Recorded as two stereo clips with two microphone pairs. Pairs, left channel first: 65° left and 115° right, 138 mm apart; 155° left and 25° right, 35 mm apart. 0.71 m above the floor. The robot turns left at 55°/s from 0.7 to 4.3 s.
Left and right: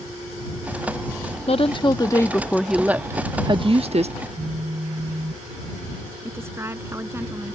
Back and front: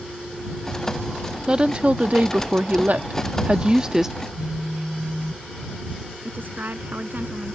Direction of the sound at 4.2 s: 75° right.